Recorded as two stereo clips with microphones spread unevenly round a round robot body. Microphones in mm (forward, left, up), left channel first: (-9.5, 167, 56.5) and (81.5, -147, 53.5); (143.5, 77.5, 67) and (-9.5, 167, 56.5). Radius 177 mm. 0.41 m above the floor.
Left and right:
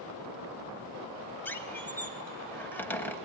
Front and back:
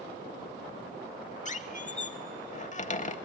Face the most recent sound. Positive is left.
turn(degrees=20)